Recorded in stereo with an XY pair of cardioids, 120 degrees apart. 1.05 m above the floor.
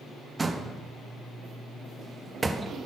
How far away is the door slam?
About 0.7 m.